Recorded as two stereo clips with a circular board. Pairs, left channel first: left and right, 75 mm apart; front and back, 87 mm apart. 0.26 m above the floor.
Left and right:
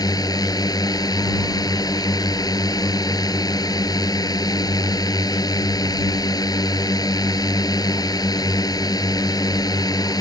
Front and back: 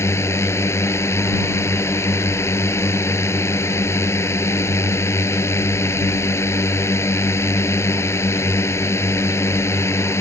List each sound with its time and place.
0.0 s a drone: 60° left